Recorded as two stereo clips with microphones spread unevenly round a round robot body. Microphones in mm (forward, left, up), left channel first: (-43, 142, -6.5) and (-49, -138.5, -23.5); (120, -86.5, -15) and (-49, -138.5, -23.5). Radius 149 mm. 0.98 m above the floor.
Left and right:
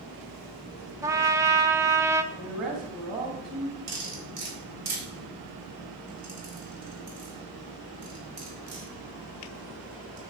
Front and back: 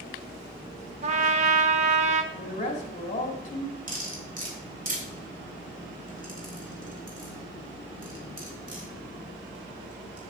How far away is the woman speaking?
About 2.0 m.